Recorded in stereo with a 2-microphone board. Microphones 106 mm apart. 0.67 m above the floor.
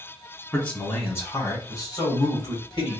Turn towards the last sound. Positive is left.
turn(degrees=45)  # may be behind; listen again after turning